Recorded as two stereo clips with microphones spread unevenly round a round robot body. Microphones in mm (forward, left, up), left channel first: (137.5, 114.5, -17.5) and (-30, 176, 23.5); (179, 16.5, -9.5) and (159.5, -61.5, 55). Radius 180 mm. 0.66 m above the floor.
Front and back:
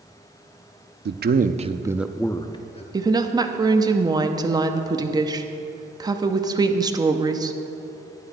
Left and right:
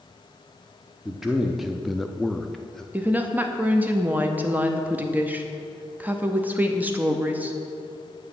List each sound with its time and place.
1.1 s a man speaking: 135° left, 0.7 m; by 2.8 s 20° left, 0.9 m
2.9 s a woman speaking: 90° left, 0.8 m